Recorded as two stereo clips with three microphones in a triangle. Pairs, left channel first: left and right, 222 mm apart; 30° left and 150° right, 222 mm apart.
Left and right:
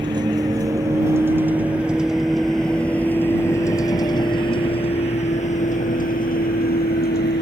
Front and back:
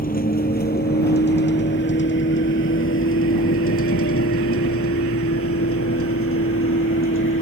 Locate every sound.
0.0 s a vehicle: 20° right; by 7.4 s 50° left